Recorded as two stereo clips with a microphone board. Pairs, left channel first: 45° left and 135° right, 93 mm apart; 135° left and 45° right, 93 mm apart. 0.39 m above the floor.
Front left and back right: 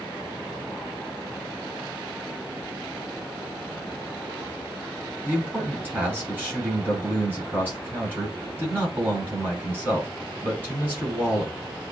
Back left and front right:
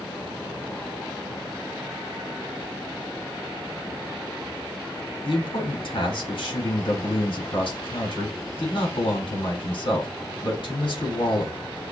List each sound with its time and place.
5.2 s a man speaking: 160° left, 4 m